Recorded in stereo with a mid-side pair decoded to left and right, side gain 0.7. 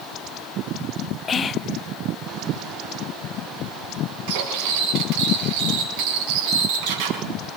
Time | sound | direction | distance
1.3 | whispering | 30° left | 0.9 m
4.3 | cutlery clinking | 70° right | 6.5 m